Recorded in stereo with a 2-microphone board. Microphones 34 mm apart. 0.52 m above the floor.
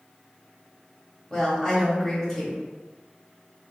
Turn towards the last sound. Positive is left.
turn(degrees=10)  # may be behind; listen again after turning